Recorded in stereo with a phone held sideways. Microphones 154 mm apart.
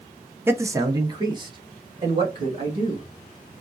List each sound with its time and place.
0.5 s a man speaking: 15° right (ahead or behind), 0.7 m; by 3.0 s 35° right (ahead or behind), 2.5 m